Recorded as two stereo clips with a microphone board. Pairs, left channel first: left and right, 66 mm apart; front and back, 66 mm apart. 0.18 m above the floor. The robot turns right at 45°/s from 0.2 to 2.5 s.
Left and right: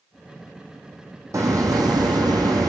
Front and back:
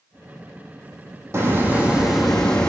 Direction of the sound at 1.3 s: 130° right.